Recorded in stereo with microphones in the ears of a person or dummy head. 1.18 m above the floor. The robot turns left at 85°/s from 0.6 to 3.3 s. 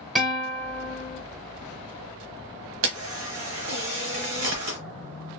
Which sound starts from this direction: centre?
A guitar, at 0.1 s.